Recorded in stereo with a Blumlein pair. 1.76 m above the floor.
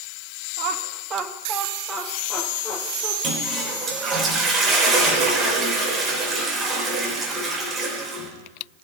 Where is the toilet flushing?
25° right, 3.5 m.